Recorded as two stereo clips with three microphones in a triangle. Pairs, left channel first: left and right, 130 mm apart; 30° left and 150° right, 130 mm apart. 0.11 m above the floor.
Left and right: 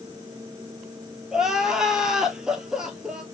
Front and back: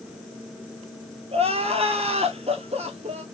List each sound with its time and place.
1.3 s crying: 175° right, 0.8 m